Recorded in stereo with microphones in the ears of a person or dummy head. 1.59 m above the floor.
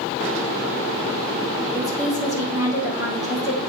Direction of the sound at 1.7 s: 20° right (ahead or behind).